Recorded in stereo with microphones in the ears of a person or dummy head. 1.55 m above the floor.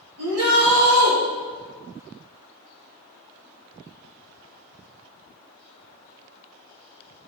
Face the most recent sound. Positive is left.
turn(degrees=-80)